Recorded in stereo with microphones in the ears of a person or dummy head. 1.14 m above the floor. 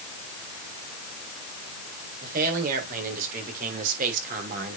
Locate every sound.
2.2 s a man speaking: 55° right (ahead or behind), 4.5 m; by 4.8 s 50° right (ahead or behind), 3 m